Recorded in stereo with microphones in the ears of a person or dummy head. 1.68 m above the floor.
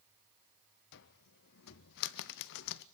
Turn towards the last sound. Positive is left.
turn(degrees=65)  # may be behind; listen again after turning